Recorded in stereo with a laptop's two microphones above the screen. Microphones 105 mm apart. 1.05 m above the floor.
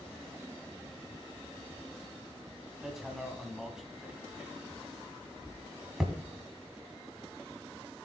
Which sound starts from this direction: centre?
Hammering, at 2.8 s.